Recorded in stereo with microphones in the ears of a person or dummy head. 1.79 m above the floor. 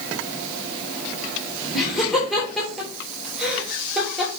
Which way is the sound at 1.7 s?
Centre (ahead or behind).